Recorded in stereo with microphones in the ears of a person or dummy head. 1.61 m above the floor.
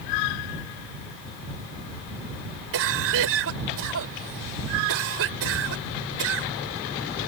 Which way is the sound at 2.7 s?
75° right (ahead or behind).